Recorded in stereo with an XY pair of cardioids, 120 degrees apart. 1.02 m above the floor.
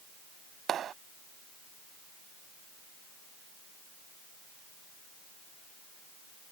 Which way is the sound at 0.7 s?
50° right.